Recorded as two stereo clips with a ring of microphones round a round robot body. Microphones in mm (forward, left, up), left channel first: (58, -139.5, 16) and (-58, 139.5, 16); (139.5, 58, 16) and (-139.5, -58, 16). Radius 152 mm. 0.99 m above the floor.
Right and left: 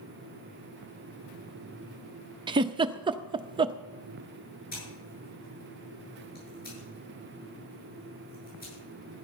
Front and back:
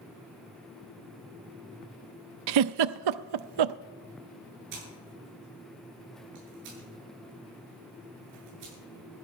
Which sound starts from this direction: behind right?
Scissors, at 4.7 s.